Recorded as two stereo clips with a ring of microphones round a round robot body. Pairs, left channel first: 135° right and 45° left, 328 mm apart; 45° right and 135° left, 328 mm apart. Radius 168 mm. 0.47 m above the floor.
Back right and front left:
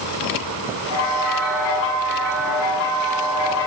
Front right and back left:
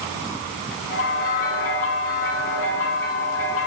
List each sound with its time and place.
0.9 s a bell: 100° right, 0.8 m